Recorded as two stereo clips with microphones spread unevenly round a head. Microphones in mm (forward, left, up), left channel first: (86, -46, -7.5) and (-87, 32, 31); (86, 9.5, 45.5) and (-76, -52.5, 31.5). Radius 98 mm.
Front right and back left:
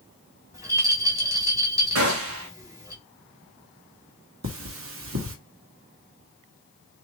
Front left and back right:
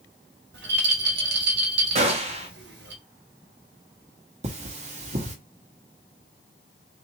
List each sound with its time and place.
0.5 s a rattle: 135° right, 1.6 m
1.9 s a gunshot: 155° left, 1.2 m
4.4 s cutlery clinking: 145° left, 1.2 m